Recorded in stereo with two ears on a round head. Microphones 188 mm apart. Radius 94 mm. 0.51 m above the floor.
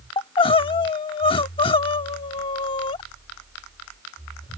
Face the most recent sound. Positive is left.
turn(degrees=25)  # may be behind; listen again after turning